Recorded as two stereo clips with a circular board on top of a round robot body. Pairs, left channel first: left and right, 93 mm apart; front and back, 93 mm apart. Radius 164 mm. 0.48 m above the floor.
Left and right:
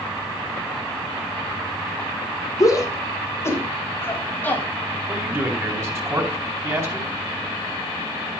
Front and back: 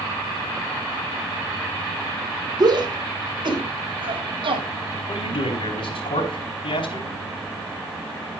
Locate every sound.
2.6 s a shout: 140° left, 3.5 m; by 4.7 s 160° left, 4.5 m
5.1 s a man speaking: 30° right, 4 m